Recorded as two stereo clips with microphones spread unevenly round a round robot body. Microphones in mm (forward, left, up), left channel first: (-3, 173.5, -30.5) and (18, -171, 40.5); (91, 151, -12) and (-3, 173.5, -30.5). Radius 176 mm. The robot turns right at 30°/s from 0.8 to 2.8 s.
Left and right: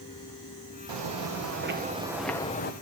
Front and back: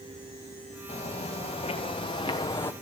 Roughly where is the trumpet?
No trumpet in this recording.